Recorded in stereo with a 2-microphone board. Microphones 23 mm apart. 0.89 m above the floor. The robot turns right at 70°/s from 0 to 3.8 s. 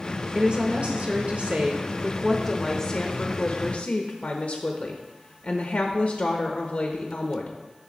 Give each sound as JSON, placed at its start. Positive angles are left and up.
{"t": 0.3, "sound": "a woman speaking", "azimuth_deg": -145, "distance_m": 0.9}